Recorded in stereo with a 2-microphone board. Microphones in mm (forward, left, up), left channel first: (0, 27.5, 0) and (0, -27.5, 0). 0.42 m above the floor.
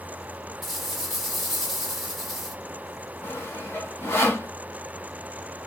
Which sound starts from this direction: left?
Sawing, at 3.2 s.